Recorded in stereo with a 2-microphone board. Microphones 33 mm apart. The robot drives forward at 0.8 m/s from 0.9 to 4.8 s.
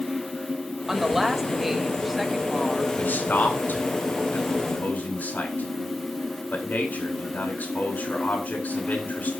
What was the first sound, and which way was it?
A woman speaking, 10° right (ahead or behind).